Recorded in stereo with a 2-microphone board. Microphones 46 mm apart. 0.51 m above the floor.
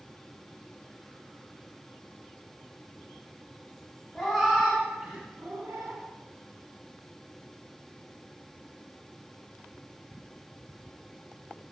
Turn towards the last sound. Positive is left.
turn(degrees=-75)  # may be behind; listen again after turning